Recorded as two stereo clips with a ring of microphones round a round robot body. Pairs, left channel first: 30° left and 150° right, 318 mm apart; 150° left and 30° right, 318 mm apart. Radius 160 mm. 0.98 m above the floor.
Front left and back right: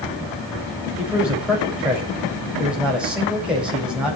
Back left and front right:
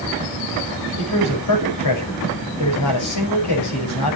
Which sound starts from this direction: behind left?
A man speaking, at 1.0 s.